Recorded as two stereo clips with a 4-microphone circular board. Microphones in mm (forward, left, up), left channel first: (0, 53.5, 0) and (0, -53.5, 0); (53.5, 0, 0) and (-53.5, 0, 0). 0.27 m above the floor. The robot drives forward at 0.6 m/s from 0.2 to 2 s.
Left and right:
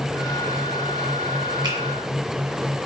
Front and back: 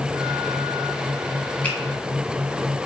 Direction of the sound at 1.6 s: 70° right.